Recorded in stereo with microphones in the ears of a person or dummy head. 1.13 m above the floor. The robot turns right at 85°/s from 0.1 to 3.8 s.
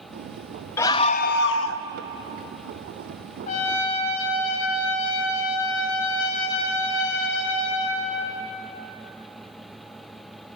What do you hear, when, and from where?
0.8 s a scream: 20° left, 1.1 m; by 1.9 s 110° left, 1.1 m
3.5 s a trumpet: 50° left (ahead or behind), 5 m; by 8.3 s 75° left (ahead or behind), 5 m